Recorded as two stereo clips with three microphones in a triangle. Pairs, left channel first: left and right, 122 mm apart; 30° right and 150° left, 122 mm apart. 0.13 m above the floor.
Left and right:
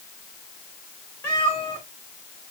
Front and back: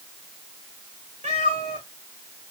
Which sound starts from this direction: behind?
A cat meowing, at 1.2 s.